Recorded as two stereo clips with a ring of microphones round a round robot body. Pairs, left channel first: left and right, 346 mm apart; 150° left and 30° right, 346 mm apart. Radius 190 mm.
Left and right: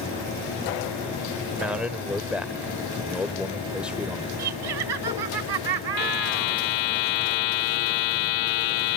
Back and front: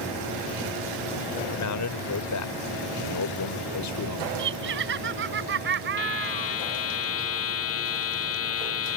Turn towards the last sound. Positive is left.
turn(degrees=100)